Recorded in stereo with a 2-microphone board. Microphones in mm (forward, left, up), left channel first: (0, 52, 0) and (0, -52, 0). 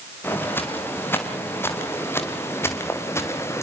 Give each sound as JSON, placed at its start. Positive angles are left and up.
{"t": 0.2, "sound": "footsteps", "side_deg": 20, "distance_m": 7.0}